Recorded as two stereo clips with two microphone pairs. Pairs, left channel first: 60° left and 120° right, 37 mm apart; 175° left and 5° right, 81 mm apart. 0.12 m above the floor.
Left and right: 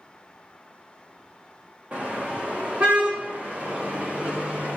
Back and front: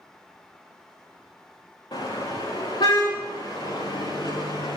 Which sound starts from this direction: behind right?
A car horn, at 1.9 s.